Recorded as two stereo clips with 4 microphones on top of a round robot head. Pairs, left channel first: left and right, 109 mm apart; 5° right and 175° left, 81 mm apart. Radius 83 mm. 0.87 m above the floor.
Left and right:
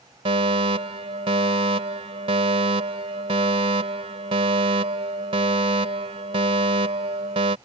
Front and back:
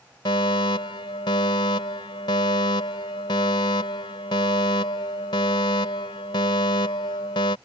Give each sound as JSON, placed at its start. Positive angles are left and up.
{"t": 0.2, "sound": "a fire alarm", "azimuth_deg": -45}